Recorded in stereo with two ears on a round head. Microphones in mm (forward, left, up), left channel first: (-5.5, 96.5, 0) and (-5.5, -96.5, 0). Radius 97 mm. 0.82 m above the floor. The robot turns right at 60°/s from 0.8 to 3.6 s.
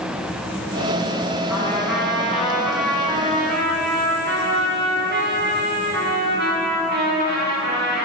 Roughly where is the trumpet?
Left.